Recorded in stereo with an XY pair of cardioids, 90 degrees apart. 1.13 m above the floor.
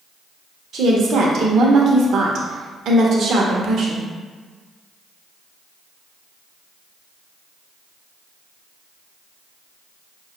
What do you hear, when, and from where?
0.7 s a woman speaking: 70° right, 0.7 m